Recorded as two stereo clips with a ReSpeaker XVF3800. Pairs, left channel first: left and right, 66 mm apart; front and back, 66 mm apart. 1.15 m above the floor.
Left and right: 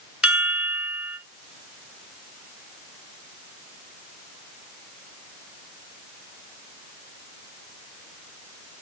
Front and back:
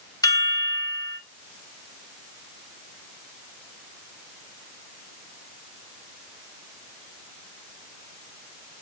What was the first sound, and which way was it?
A chime, 10° right.